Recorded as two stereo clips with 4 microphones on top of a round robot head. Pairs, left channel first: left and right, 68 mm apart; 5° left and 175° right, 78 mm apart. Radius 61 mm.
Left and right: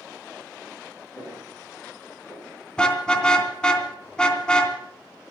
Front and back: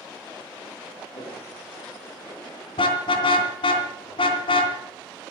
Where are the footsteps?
30° left, 10 m; by 2.6 s 25° left, 10 m.